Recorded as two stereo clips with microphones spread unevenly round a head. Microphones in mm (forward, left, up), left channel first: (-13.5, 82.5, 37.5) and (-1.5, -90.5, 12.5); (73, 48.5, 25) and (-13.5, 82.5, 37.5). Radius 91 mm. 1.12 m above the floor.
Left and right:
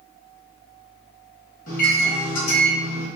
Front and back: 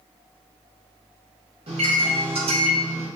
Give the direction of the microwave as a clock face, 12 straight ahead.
7 o'clock.